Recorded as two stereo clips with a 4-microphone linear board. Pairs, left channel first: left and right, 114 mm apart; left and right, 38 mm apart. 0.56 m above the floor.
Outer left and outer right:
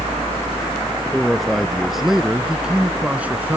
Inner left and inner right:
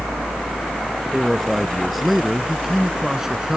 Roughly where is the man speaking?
Centre.